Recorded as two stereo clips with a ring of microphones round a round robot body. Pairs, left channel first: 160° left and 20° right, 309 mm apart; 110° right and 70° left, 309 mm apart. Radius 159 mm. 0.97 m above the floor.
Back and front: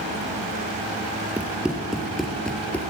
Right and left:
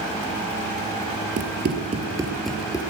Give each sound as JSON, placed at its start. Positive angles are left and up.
{"t": 1.4, "sound": "running footsteps", "azimuth_deg": 60, "distance_m": 1.1}